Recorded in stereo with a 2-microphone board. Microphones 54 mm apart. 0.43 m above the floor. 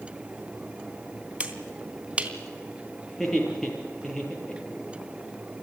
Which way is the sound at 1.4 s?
20° right (ahead or behind).